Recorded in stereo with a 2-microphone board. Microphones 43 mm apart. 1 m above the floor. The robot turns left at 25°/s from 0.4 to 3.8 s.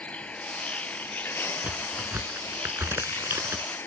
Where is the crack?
35° right (ahead or behind); by 3.6 s 85° right.